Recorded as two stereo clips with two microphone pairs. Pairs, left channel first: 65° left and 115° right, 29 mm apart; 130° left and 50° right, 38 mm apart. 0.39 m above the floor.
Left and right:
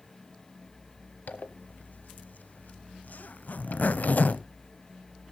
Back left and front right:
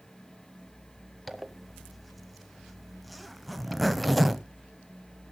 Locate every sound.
1.3 s a zipper: 45° left, 0.8 m